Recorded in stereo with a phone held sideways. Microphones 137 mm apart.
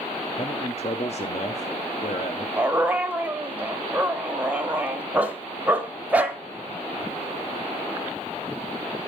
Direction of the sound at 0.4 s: 50° left (ahead or behind).